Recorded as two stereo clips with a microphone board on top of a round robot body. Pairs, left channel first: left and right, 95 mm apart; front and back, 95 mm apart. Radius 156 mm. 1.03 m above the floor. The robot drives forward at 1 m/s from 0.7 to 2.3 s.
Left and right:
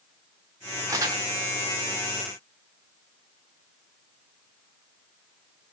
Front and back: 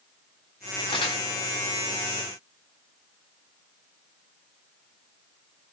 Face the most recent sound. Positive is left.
turn(degrees=-65)